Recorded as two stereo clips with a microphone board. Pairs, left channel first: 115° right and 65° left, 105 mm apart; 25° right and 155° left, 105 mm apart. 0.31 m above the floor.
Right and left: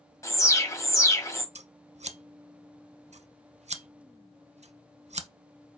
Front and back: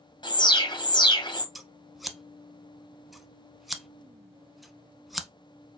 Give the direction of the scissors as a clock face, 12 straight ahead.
10 o'clock.